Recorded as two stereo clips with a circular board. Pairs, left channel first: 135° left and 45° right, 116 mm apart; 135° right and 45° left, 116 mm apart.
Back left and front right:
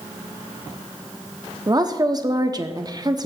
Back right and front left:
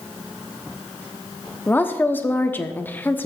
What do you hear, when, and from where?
1.7 s a woman speaking: 70° right, 0.7 m